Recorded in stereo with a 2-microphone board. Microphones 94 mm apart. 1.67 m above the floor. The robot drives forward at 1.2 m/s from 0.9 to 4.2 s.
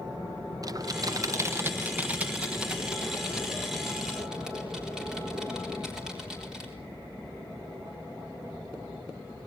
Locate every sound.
0.6 s typing on a keyboard: 40° right (ahead or behind), 0.7 m; by 6.7 s 5° right (ahead or behind), 4 m